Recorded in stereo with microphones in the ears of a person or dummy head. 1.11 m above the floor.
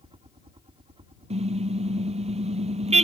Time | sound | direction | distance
0.0 | a helicopter | 25° right (ahead or behind) | ?
1.3 | a car horn | 30° right (ahead or behind) | ?